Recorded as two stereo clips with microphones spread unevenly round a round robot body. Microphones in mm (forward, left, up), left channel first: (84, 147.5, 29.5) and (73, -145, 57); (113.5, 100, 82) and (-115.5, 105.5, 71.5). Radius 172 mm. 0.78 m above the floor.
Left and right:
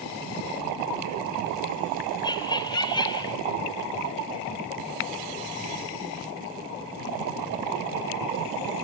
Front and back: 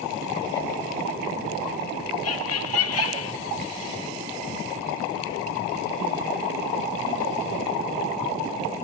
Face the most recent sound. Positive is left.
turn(degrees=15)